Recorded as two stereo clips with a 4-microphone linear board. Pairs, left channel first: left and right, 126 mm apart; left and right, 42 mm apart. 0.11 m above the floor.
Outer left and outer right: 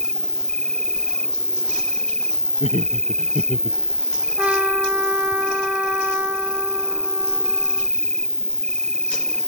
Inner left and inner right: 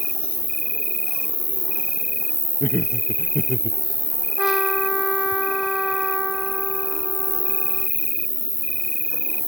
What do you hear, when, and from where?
0.0 s an insect: 5° left (ahead or behind)
2.6 s laughter: 55° left (ahead or behind)
4.4 s a trumpet: 10° right (ahead or behind)